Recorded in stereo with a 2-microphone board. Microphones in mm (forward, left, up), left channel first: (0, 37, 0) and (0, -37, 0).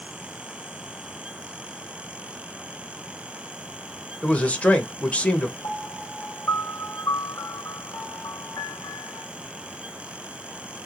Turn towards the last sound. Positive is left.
turn(degrees=45)  # may be behind; listen again after turning